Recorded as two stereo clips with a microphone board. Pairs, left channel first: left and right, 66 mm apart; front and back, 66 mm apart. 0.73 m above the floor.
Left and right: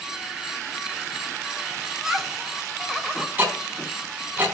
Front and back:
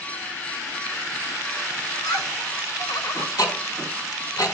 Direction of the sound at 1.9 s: 5° right.